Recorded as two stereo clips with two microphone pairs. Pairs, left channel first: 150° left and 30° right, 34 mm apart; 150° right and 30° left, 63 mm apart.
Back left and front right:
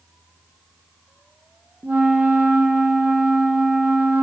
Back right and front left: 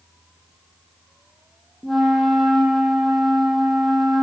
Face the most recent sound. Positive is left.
turn(degrees=-60)